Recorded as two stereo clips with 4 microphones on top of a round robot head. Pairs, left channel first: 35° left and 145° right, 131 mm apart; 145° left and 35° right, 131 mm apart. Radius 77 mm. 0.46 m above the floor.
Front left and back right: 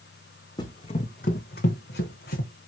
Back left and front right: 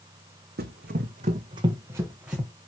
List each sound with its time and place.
0.6 s running footsteps: 25° right, 1.4 m; by 2.5 s 50° left, 1.9 m